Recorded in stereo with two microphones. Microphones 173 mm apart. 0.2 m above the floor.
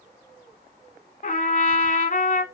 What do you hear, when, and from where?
1.2 s a trumpet: 50° left (ahead or behind), 1.1 m